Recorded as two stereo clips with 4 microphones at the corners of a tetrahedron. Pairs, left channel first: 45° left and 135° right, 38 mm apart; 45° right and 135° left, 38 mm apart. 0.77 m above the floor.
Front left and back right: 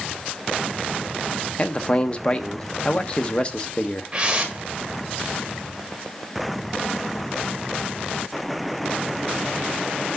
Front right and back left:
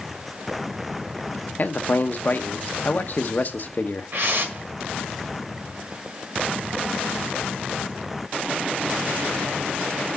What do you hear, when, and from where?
1.6 s a man speaking: 15° right, 0.8 m
4.1 s a whoosh: 160° left, 1.5 m